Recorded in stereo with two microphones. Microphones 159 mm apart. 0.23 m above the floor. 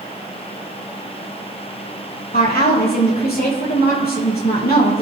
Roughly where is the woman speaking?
Left.